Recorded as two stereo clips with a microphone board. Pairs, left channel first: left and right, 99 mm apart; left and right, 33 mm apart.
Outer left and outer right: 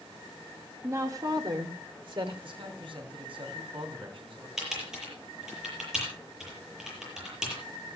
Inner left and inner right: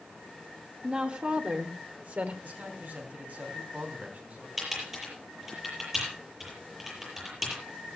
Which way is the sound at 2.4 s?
60° right (ahead or behind).